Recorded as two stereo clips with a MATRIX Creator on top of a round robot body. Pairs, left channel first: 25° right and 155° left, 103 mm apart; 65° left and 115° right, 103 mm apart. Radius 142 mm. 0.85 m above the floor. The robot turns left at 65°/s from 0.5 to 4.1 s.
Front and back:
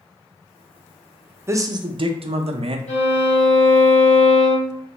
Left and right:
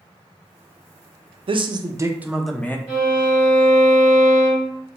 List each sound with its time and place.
1.5 s a man speaking: 140° right, 0.5 m; by 2.8 s 135° left, 0.5 m
2.9 s a violin: 35° right, 1.7 m; by 4.7 s 115° right, 1.7 m